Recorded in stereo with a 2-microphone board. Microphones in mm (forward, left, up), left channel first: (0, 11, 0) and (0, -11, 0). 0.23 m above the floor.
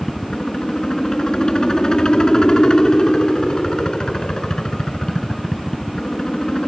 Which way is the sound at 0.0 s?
35° left (ahead or behind).